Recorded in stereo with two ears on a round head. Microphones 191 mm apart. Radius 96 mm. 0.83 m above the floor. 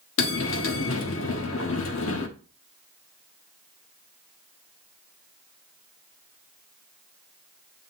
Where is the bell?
65° left (ahead or behind), 1.3 m.